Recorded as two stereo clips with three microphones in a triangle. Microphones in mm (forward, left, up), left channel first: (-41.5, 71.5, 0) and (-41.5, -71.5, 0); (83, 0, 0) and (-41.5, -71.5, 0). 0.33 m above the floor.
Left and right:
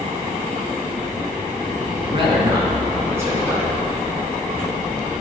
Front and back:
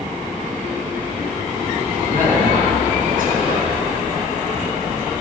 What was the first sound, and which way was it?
A man speaking, 140° right.